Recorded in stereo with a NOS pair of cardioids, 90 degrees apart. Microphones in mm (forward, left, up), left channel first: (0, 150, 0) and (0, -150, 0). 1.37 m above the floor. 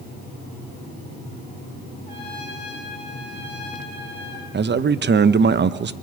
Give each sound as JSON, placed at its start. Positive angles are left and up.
{"t": 2.1, "sound": "a trumpet", "azimuth_deg": 15, "distance_m": 6.5}
{"t": 4.5, "sound": "a man speaking", "azimuth_deg": -35, "distance_m": 1.0}